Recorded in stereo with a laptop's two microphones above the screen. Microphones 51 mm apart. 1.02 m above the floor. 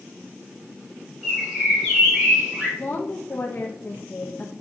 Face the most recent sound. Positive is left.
turn(degrees=45)  # may be behind; listen again after turning